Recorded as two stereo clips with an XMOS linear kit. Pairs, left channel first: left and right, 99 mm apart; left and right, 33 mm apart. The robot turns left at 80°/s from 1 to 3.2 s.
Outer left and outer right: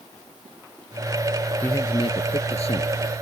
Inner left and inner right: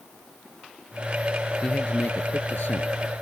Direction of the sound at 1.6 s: 160° left.